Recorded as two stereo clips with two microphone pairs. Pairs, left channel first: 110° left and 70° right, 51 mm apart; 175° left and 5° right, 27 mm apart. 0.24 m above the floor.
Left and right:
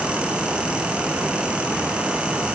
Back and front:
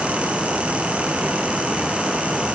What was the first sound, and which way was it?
Only background noise.